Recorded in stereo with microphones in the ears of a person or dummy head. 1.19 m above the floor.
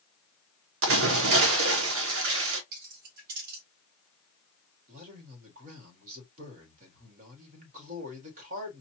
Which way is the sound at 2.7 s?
50° right (ahead or behind).